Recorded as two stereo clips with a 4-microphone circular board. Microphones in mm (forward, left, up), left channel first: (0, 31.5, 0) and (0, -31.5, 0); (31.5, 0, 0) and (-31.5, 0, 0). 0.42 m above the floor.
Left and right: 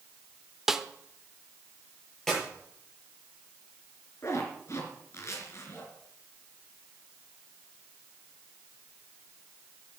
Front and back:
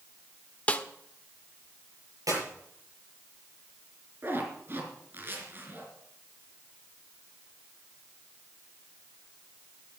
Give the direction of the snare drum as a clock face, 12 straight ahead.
12 o'clock.